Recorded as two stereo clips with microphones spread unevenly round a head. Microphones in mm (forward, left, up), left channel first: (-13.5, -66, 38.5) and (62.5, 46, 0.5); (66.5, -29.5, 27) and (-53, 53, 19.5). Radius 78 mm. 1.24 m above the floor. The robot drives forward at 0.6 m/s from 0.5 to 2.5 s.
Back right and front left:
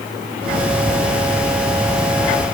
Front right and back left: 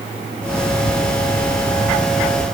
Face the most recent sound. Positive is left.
No sound to turn to.